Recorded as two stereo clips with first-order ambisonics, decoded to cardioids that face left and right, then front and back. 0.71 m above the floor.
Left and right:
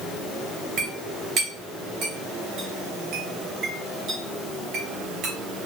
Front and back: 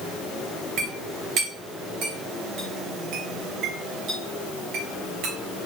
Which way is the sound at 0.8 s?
140° right.